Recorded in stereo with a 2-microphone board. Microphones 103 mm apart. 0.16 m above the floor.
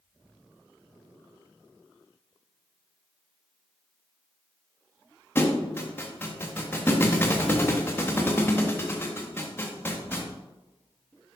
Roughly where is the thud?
Left.